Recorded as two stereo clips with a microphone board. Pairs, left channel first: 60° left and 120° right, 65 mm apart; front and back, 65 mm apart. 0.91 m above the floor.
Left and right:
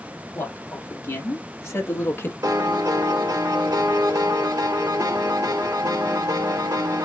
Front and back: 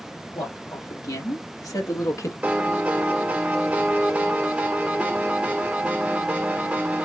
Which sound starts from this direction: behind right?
A piano, at 2.4 s.